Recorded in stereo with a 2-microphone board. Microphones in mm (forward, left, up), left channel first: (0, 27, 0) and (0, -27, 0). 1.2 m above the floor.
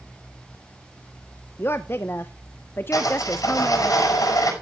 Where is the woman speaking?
40° left (ahead or behind), 0.6 m.